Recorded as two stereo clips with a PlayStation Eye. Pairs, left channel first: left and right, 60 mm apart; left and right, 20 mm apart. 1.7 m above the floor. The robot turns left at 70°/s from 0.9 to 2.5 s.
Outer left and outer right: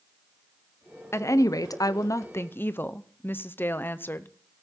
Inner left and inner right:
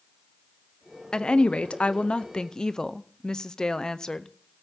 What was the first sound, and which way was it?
A woman speaking, 135° left.